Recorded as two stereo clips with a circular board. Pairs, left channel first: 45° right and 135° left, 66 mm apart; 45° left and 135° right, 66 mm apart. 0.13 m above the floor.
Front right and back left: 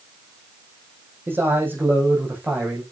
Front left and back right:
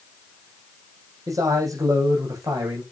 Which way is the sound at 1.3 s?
170° right.